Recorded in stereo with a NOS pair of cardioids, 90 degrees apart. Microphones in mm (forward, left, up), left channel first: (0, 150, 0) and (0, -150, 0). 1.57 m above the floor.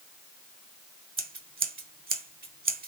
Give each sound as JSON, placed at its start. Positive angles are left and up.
{"t": 1.2, "sound": "scissors", "azimuth_deg": -30, "distance_m": 0.9}